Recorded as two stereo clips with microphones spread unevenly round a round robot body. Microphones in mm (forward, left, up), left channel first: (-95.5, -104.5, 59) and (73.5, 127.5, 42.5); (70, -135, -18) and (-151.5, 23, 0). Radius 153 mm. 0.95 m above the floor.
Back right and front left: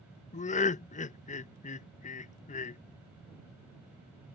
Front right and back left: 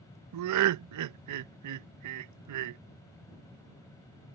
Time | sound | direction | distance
0.3 | laughter | 165° left | ?